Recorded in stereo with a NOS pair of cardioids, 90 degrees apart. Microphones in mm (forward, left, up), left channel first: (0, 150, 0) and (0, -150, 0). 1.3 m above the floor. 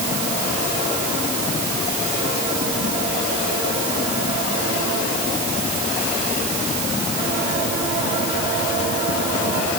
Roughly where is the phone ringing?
I don't hear a phone ringing.